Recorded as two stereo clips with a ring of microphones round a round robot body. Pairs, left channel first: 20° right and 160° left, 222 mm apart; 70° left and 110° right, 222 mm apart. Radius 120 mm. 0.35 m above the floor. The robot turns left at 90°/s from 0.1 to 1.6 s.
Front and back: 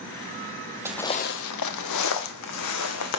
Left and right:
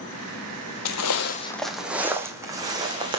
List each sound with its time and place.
0.8 s footsteps: 80° left, 0.6 m; by 3.2 s 40° right, 1.6 m